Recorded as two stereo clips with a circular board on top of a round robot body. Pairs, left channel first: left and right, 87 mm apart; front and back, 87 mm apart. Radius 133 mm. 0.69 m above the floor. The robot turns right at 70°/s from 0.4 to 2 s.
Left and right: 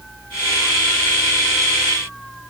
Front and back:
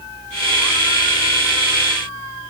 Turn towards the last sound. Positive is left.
No sound to turn to.